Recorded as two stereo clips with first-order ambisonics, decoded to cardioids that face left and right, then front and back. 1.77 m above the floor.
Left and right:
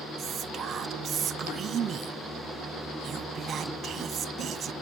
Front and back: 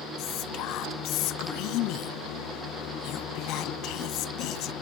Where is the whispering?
30° right.